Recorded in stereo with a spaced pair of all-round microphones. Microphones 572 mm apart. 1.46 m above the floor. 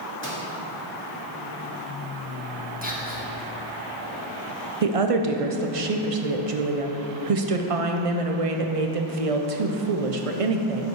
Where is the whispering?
15° right (ahead or behind), 1.6 m.